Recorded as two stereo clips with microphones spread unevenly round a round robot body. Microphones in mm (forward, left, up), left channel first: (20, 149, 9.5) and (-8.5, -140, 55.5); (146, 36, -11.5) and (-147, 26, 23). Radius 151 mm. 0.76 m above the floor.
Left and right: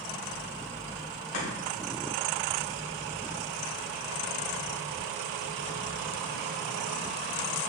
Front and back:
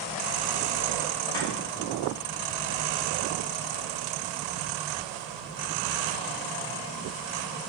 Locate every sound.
1.3 s chopping: 80° left, 2.5 m